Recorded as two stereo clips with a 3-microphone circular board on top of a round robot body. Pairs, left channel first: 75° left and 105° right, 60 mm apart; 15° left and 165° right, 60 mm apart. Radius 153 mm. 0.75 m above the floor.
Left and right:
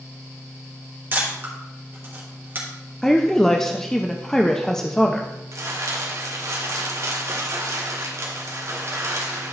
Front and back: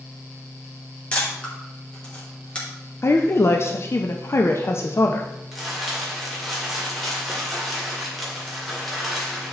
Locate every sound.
1.1 s a camera shutter: 50° right, 3 m
3.0 s a woman speaking: 5° right, 0.8 m
5.5 s crumpling: 70° right, 2 m